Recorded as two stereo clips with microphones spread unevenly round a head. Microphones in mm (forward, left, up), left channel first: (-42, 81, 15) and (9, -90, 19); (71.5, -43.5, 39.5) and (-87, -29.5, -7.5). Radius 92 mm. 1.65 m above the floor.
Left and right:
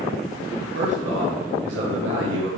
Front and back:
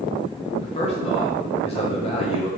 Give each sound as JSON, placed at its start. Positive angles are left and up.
{"t": 0.6, "sound": "a man speaking", "azimuth_deg": -45, "distance_m": 1.3}